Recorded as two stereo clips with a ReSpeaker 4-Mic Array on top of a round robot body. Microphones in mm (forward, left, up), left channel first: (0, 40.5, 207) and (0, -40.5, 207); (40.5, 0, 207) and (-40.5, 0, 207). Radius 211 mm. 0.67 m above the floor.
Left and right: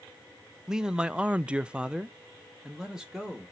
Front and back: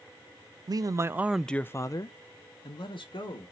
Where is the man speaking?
170° right, 0.6 m; by 3.5 s 5° right, 1.2 m.